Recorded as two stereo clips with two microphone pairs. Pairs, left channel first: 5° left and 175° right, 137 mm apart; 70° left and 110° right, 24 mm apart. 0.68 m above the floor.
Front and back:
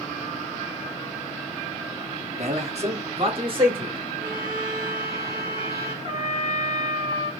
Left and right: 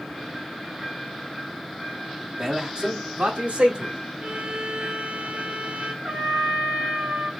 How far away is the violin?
About 2 m.